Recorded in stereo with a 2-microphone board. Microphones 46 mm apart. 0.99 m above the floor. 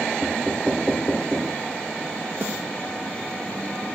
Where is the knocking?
10° left (ahead or behind), 0.9 m.